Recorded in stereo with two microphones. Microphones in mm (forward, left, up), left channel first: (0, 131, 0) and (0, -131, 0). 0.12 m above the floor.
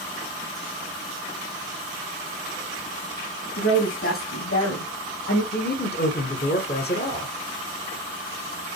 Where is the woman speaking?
50° left (ahead or behind), 3 m; by 5.4 s 65° left (ahead or behind), 4.5 m.